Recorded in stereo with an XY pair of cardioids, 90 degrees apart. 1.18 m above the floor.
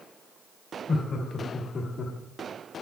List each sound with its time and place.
0.9 s laughter: 65° left, 2 m; by 2.1 s 60° left, 1.5 m